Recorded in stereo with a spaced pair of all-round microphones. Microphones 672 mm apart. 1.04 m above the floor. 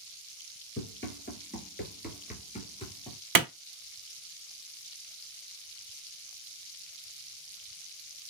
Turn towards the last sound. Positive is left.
turn(degrees=-30)  # may be behind; listen again after turning